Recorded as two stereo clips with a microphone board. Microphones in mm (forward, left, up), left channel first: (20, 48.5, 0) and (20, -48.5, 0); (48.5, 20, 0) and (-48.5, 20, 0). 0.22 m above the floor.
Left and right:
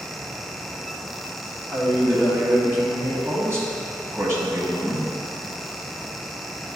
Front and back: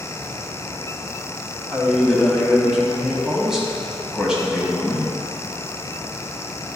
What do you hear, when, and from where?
1.7 s a man speaking: 100° right, 1.3 m